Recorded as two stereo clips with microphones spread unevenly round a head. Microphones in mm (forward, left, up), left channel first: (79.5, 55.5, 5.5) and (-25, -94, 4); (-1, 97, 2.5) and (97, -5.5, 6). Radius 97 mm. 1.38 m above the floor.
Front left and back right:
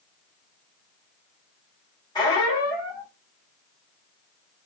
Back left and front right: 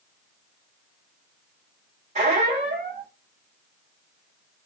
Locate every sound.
2.1 s a squeak: 15° right, 2 m